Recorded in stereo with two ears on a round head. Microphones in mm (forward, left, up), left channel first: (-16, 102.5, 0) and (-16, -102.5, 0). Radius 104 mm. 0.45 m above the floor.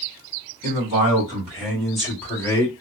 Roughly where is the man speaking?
Right.